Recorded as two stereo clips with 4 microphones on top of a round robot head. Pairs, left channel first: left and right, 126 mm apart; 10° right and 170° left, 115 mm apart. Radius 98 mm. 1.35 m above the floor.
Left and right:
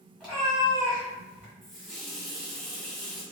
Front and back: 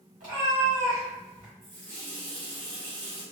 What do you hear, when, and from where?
0.2 s a cat meowing: straight behind, 1.8 m; by 1.5 s 165° right, 1.2 m
1.6 s a running tap: straight behind, 1.5 m